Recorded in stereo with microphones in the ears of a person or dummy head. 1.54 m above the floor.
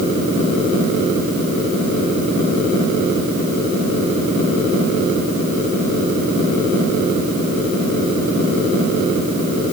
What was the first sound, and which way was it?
Only background noise.